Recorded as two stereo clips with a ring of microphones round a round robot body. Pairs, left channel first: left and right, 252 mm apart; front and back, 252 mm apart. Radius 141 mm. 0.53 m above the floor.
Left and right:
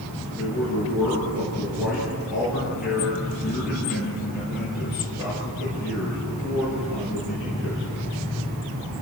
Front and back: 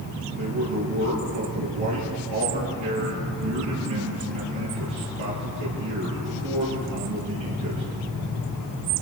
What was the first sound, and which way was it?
A man speaking, 175° right.